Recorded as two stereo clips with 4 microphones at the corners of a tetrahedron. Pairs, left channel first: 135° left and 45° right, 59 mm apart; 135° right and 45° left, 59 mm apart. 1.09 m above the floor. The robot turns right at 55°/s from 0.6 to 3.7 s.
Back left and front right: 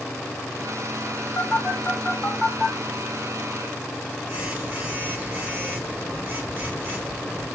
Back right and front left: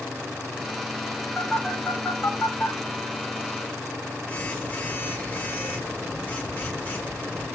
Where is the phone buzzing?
150° left, 0.8 m; by 7.5 s 80° right, 0.8 m.